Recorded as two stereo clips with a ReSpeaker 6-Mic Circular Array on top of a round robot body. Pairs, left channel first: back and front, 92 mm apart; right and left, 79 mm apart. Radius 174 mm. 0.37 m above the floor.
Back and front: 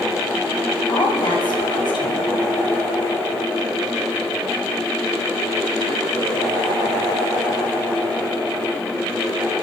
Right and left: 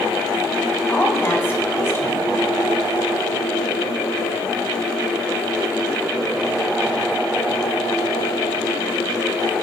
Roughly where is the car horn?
I don't hear a car horn.